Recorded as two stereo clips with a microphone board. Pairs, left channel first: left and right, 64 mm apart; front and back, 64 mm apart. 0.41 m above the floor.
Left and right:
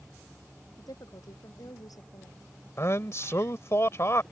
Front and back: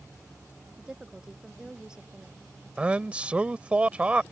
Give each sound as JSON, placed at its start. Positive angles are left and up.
{"t": 0.8, "sound": "a woman speaking", "azimuth_deg": 100}
{"t": 2.8, "sound": "a man speaking", "azimuth_deg": 115}